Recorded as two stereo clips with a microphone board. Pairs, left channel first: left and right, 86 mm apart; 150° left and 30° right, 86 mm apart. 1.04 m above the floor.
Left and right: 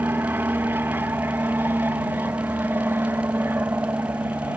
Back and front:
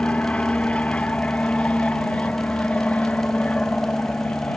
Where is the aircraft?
140° right.